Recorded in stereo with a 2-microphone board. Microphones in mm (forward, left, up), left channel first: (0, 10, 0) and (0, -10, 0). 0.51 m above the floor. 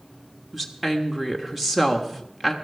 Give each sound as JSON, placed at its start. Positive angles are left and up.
{"t": 0.5, "sound": "a woman speaking", "side_deg": 0, "distance_m": 1.2}